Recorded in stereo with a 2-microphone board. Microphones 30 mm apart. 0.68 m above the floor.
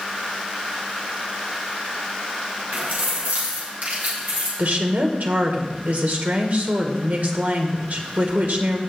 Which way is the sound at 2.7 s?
65° right (ahead or behind).